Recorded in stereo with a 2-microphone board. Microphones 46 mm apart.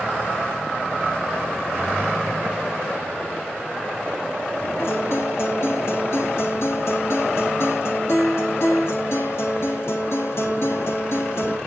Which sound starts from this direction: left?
A guitar, at 4.8 s.